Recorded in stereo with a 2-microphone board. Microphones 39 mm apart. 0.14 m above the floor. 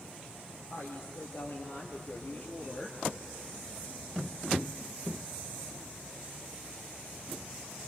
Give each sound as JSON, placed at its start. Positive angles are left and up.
{"t": 0.7, "sound": "a woman speaking", "side_deg": 75, "distance_m": 3.5}